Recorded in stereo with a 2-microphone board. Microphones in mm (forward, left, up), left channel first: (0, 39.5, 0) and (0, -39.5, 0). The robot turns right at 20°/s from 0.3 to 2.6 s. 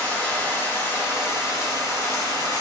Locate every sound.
0.0 s running water: 20° left, 2 m; by 2.6 s 65° left, 2 m